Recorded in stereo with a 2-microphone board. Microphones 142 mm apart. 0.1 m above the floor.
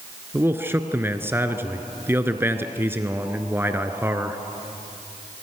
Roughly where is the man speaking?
Centre.